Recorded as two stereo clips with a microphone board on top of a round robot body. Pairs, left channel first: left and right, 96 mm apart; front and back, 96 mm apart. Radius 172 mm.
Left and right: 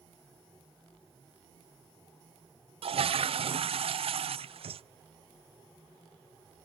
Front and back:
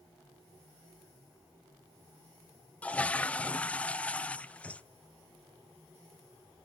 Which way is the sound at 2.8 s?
75° right.